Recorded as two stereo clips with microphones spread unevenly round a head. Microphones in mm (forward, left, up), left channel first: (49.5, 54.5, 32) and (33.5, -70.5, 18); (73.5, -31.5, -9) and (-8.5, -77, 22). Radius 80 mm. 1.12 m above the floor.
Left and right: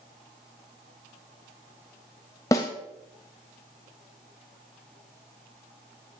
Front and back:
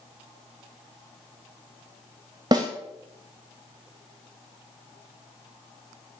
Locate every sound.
2.5 s a snare drum: 150° left, 0.6 m